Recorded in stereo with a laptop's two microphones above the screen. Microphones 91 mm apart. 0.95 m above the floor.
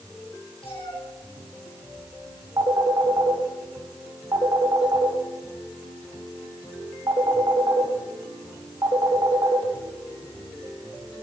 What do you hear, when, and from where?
0.6 s a cat meowing: 85° left, 5 m
2.6 s a phone ringing: 50° right (ahead or behind), 2 m